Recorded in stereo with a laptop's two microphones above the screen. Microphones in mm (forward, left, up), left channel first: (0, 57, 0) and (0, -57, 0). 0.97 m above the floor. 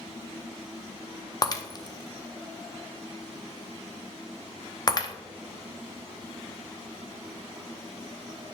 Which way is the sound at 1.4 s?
35° left (ahead or behind).